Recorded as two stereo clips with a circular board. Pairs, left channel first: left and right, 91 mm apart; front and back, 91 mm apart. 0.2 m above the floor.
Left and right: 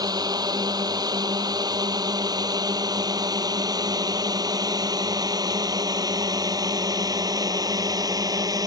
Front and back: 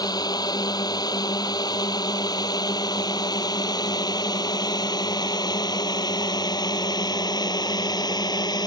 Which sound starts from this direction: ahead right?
A drone, at 0.0 s.